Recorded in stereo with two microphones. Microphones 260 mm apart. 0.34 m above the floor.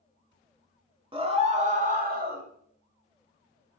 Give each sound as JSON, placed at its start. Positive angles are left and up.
{"t": 1.1, "sound": "a scream", "side_deg": -20, "distance_m": 1.6}